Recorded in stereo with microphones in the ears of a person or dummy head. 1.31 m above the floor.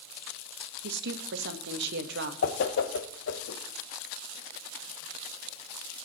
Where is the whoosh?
60° left (ahead or behind), 1.1 m.